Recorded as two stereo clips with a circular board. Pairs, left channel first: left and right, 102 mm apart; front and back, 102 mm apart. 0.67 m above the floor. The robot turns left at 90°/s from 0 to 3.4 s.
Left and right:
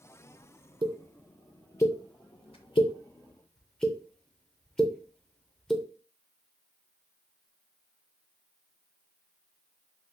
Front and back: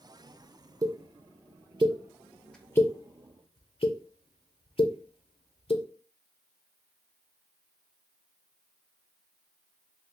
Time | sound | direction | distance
0.8 | a pop | 120° right | 0.5 m